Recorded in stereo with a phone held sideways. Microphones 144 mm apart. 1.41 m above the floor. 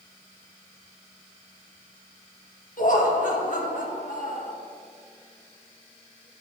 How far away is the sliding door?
No sliding door in this recording.